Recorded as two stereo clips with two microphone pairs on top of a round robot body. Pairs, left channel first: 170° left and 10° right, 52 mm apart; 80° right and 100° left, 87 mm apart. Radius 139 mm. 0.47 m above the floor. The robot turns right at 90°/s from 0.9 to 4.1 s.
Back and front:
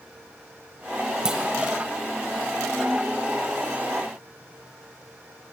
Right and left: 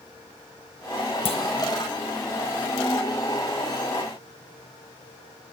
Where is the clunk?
90° right, 0.9 m; by 1.4 s 75° right, 0.9 m.